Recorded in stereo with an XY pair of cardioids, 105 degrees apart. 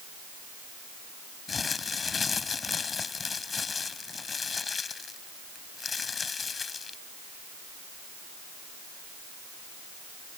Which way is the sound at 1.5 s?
35° left.